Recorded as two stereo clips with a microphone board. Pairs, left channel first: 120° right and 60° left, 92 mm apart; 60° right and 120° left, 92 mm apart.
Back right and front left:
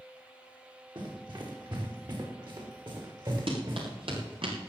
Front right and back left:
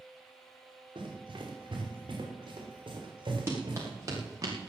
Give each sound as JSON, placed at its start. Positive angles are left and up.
{"t": 0.9, "sound": "running footsteps", "azimuth_deg": 95, "distance_m": 5.0}
{"t": 3.5, "sound": "running footsteps", "azimuth_deg": 60, "distance_m": 5.5}